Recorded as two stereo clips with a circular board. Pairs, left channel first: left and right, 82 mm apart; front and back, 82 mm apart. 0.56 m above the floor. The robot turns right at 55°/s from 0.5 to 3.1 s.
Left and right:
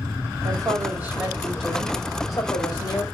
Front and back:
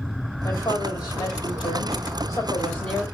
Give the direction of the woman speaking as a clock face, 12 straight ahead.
2 o'clock.